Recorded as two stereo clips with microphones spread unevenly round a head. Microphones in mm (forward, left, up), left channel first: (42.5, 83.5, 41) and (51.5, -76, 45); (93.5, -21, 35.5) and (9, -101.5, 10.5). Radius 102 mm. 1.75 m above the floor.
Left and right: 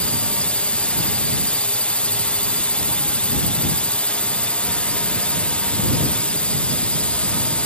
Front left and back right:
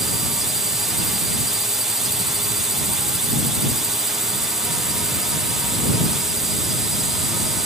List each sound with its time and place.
0.0 s a drone: 165° left